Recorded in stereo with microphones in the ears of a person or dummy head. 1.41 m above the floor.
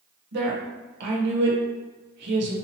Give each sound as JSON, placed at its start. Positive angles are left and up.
{"t": 0.3, "sound": "a woman speaking", "side_deg": -65, "distance_m": 1.2}